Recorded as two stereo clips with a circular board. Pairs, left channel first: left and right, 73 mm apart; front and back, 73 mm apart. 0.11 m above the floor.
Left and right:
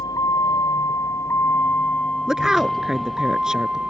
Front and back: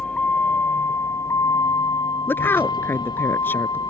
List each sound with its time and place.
0.0 s a vehicle: 75° left; by 3.9 s 10° right
2.3 s a woman speaking: 15° right